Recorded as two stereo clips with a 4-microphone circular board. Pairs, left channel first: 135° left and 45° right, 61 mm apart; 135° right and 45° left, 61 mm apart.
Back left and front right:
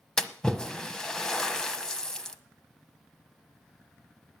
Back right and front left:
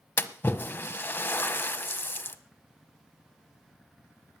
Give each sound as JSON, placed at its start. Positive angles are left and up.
{"t": 0.2, "sound": "a splash", "azimuth_deg": -155, "distance_m": 1.0}